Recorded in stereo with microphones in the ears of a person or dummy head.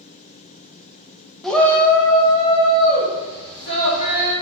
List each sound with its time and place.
1.4 s a shout: centre (ahead or behind), 0.5 m; by 4.3 s 30° left (ahead or behind), 2 m